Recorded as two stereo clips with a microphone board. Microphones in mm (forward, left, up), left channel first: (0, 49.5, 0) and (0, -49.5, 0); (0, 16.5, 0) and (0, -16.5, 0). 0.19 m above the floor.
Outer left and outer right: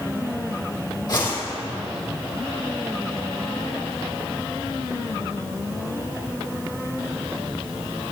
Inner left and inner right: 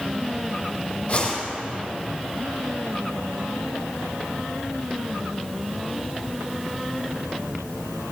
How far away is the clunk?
I don't hear a clunk.